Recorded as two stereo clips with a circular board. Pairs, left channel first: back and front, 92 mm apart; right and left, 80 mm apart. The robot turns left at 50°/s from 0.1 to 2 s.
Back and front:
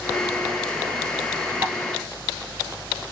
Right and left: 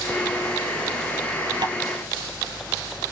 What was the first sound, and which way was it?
Tapping, 65° left.